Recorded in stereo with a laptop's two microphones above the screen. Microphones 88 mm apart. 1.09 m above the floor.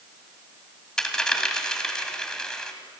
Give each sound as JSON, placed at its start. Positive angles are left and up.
{"t": 1.0, "sound": "a dropped coin", "side_deg": 10, "distance_m": 1.7}